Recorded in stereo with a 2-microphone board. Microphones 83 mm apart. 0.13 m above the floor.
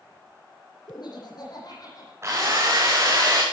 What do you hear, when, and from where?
0.9 s laughter: 60° left (ahead or behind), 7.5 m; by 2.1 s 50° left (ahead or behind), 8 m
2.2 s a drill: 35° right (ahead or behind), 5 m